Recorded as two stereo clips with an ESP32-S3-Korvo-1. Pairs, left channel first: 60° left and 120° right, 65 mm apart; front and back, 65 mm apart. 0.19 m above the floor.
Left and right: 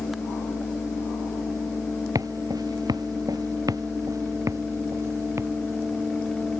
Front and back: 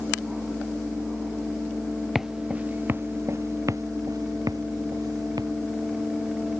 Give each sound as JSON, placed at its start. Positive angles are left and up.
{"t": 2.1, "sound": "footsteps", "azimuth_deg": -95}